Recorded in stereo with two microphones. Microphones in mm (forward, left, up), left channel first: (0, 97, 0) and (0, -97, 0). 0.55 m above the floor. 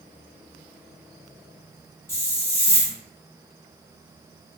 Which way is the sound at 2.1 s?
15° left (ahead or behind).